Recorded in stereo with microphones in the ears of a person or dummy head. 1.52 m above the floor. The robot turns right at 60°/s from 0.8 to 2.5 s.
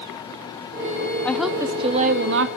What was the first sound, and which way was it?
A woman speaking, 175° left.